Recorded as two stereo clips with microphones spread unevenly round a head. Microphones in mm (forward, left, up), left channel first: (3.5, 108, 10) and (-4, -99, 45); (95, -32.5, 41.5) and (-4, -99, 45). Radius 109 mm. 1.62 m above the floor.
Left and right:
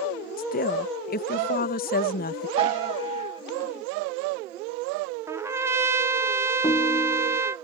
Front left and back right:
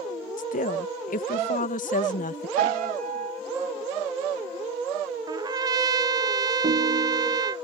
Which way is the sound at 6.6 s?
165° left.